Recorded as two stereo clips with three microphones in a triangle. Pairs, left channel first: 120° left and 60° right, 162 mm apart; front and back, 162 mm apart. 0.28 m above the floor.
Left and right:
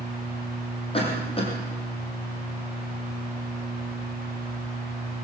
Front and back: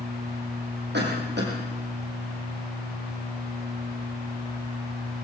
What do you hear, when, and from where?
0.9 s a cough: 175° left, 9.5 m